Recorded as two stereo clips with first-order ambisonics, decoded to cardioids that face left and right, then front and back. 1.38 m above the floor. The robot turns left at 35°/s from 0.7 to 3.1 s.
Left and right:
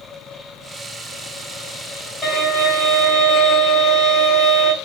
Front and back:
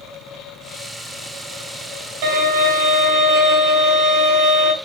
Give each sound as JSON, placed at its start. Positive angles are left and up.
{"t": 2.2, "sound": "a violin", "azimuth_deg": 175, "distance_m": 1.5}